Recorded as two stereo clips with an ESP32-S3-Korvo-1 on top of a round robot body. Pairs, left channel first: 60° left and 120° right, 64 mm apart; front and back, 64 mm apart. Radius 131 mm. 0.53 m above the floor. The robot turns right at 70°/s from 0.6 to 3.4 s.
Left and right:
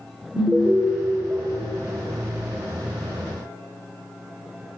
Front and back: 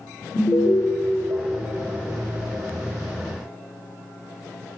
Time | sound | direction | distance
0.3 | an alarm | 35° right | 1.9 m